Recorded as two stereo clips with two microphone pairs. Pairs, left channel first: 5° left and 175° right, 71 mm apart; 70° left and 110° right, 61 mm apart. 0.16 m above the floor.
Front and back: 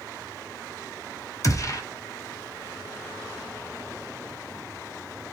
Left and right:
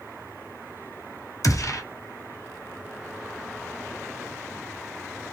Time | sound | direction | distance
1.4 | a gunshot | 45° left | 0.7 m